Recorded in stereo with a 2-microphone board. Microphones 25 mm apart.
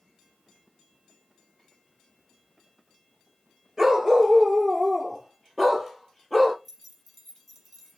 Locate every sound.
3.8 s a dog barking: 15° right (ahead or behind), 3 m; by 6.5 s 10° left (ahead or behind), 4 m
6.7 s keys jangling: 5° left (ahead or behind), 2.5 m